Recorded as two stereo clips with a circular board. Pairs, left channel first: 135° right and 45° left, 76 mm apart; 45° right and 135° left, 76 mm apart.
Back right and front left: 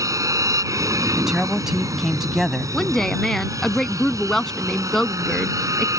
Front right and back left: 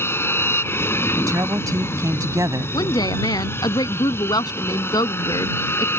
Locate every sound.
0.0 s an aircraft: 10° left
1.2 s a woman speaking: 130° left
2.7 s a woman speaking: 50° right